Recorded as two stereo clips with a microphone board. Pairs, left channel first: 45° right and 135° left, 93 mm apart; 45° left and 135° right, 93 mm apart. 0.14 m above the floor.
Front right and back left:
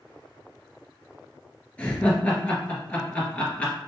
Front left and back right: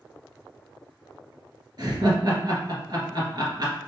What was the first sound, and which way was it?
Laughter, 115° right.